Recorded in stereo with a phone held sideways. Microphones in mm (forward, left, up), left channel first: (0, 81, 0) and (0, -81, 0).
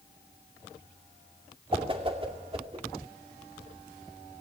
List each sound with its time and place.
1.7 s a whoosh: 35° right (ahead or behind), 2.5 m